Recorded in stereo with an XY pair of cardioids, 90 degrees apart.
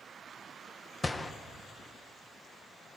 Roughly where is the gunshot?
Ahead left.